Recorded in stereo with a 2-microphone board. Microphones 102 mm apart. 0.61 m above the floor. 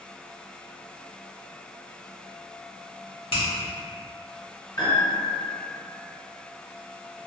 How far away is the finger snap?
About 1.2 m.